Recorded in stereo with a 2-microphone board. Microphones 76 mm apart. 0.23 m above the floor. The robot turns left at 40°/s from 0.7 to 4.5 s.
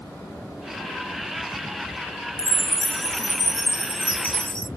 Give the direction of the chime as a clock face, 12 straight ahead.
9 o'clock.